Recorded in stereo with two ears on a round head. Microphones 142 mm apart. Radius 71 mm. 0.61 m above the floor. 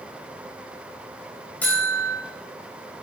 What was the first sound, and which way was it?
A buzzer, 10° left (ahead or behind).